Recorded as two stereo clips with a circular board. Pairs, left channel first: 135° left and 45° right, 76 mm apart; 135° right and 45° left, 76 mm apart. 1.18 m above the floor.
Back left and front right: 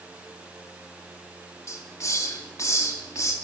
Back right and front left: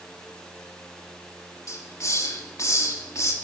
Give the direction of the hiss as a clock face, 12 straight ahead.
6 o'clock.